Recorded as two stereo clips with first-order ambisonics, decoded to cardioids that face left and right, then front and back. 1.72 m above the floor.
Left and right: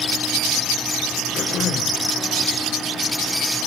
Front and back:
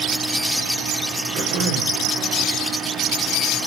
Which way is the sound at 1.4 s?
150° left.